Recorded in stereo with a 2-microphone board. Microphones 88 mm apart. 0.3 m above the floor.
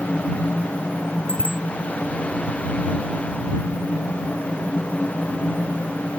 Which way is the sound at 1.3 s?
85° right.